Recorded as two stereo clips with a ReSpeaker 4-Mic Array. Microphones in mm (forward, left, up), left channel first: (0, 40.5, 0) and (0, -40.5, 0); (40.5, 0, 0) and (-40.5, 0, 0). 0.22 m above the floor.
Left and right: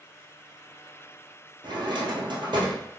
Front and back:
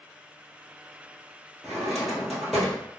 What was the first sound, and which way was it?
A drawer, 90° right.